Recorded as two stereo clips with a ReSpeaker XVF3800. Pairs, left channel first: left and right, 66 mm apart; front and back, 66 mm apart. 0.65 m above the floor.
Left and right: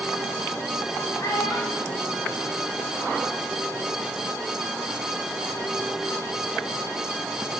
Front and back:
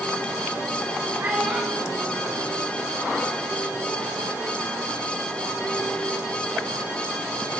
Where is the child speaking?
110° left, 2 m; by 3.2 s 55° left, 2.0 m.